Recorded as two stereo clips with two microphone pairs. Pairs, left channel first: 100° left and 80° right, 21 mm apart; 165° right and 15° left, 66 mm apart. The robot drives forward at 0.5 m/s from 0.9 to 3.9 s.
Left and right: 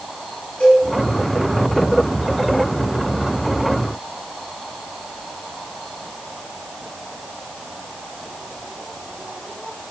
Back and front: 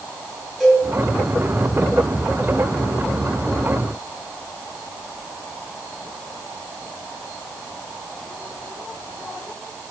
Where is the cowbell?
115° left, 4.5 m.